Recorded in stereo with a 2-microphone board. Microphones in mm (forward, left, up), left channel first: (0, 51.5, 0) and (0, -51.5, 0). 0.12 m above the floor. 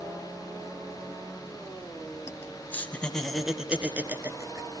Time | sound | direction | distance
2.3 | laughter | 30° left (ahead or behind) | 1.9 m